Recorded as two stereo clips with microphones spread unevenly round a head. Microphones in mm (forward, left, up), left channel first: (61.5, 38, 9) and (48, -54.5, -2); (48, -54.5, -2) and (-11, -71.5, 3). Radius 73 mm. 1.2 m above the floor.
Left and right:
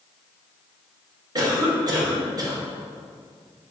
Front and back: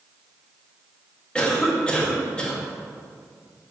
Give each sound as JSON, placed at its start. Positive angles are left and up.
{"t": 1.4, "sound": "a cough", "azimuth_deg": -55, "distance_m": 2.0}